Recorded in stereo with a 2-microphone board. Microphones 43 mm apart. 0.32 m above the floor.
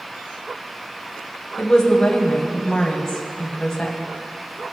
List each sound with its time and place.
1.6 s a woman speaking: 10° left (ahead or behind), 1.9 m